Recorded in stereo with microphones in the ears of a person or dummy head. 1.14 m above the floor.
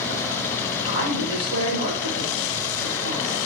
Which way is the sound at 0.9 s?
30° right (ahead or behind).